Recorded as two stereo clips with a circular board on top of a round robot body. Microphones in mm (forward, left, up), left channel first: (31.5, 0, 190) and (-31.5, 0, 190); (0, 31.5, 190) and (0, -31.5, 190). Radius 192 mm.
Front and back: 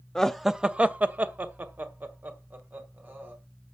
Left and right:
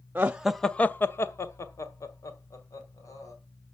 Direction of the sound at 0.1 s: 75° right.